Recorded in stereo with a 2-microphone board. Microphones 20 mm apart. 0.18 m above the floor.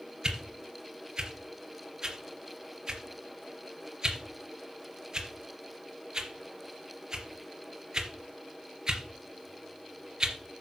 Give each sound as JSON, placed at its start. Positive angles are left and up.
{"t": 0.2, "sound": "a whoosh", "side_deg": -30, "distance_m": 3.0}